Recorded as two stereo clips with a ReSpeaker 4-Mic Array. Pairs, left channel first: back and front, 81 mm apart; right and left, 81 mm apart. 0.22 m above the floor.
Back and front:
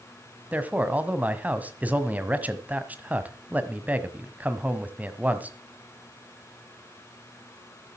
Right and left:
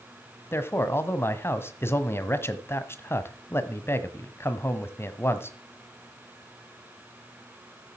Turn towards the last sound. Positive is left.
turn(degrees=-60)